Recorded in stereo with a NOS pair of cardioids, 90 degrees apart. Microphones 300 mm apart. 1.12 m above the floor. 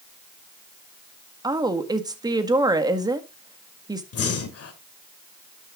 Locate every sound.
1.4 s a woman speaking: 15° right, 1.6 m
4.1 s breathing: 50° left, 2 m